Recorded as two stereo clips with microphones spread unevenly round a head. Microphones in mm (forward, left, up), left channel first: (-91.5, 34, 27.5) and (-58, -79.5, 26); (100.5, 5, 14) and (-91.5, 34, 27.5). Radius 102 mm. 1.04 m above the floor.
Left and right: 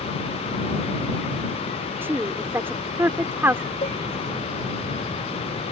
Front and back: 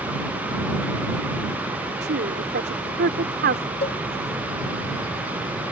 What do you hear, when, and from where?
2.0 s a woman speaking: 145° right
3.8 s a cowbell: 50° left